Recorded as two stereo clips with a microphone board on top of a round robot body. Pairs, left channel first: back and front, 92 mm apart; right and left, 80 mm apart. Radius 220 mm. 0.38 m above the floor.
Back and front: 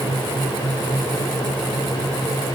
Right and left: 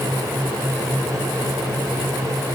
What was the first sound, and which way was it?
Only background noise.